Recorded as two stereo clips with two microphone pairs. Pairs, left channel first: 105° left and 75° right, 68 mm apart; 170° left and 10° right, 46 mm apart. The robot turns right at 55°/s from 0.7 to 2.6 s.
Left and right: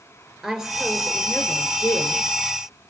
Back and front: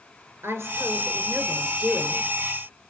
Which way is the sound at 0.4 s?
5° left.